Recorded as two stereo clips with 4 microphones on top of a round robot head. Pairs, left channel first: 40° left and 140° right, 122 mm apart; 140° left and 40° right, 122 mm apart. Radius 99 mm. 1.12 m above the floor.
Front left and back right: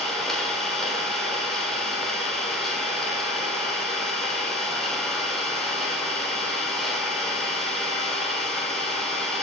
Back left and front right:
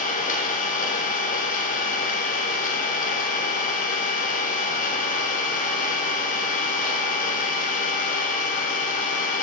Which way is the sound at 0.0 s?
125° left.